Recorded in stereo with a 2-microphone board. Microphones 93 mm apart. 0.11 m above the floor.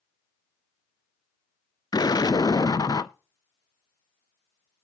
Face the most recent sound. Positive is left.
turn(degrees=45)  # may be behind; listen again after turning